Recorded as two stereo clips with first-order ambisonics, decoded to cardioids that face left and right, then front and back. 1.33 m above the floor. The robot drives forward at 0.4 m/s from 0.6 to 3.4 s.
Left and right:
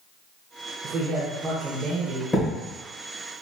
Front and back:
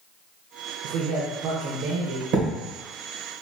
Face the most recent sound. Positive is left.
turn(degrees=170)